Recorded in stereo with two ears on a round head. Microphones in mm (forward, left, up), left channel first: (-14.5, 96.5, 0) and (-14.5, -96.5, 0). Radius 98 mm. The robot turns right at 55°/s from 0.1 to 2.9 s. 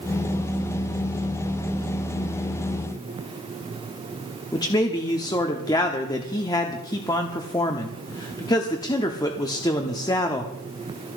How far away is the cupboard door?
No cupboard door in this recording.